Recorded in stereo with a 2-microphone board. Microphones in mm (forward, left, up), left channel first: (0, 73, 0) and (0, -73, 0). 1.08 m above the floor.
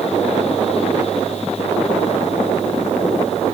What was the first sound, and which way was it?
Only background noise.